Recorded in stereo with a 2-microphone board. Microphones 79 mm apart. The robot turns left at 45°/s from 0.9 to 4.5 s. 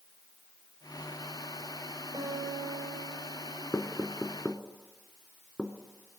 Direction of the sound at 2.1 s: 65° right.